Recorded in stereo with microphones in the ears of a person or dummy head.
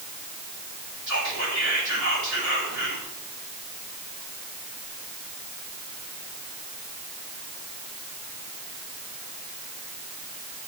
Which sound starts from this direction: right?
Whispering, at 1.1 s.